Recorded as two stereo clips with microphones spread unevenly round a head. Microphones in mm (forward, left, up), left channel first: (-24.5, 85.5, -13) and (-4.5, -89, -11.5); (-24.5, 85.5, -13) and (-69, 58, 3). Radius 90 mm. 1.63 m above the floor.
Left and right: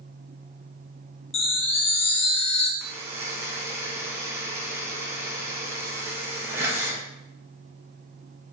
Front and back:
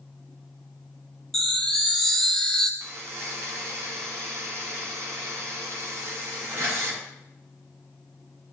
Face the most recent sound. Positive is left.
turn(degrees=-160)